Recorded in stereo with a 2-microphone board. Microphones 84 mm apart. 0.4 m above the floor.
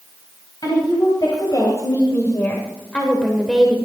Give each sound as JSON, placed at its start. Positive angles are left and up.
{"t": 0.6, "sound": "a woman speaking", "side_deg": 55, "distance_m": 3.0}